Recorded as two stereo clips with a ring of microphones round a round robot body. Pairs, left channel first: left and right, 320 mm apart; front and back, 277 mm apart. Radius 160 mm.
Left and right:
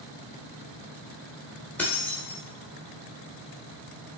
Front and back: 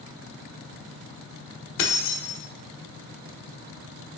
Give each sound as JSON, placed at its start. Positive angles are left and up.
{"t": 1.8, "sound": "keys jangling", "azimuth_deg": 5, "distance_m": 1.0}